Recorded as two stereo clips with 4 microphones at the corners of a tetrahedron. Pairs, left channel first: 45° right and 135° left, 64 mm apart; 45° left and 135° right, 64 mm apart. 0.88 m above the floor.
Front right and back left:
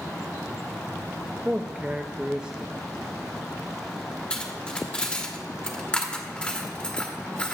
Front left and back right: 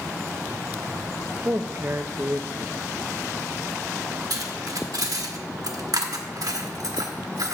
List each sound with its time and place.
1.4 s a man speaking: 165° right, 0.6 m
4.3 s cutlery clinking: 120° right, 1.2 m